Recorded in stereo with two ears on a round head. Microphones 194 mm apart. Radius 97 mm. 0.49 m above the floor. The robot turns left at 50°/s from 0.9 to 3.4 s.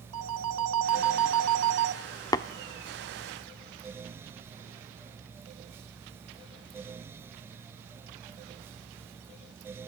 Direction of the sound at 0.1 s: 80° right.